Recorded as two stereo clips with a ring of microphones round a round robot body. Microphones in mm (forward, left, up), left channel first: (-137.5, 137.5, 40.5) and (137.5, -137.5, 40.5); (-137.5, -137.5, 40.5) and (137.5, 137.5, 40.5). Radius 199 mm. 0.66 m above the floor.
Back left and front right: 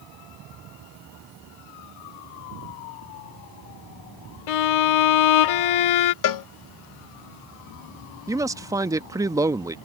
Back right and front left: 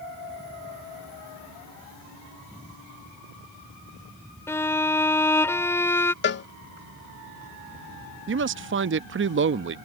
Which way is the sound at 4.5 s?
140° left.